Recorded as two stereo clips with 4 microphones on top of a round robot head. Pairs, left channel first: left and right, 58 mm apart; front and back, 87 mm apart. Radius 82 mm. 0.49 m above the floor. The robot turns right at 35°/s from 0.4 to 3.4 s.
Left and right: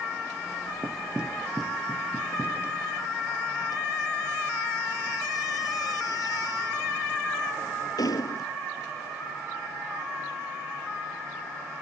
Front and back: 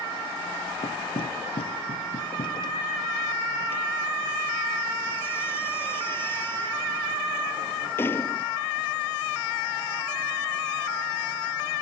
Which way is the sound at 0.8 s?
25° right.